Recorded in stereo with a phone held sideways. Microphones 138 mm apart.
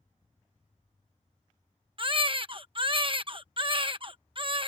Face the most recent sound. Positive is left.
turn(degrees=-40)  # may be behind; listen again after turning